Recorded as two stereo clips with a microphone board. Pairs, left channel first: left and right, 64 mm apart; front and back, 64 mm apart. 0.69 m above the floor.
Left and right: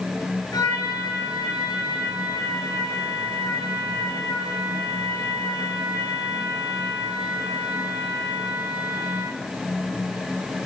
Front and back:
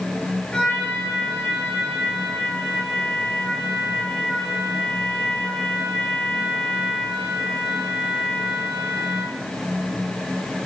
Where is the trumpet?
75° left, 8 m.